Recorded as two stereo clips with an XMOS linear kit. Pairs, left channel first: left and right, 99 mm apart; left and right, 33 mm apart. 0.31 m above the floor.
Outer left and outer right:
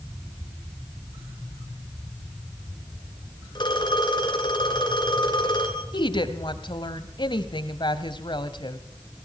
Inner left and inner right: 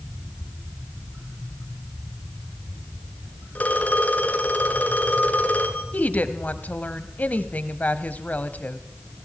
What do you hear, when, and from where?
3.5 s a phone ringing: 50° left (ahead or behind), 3 m
5.9 s a woman speaking: 50° left (ahead or behind), 1.4 m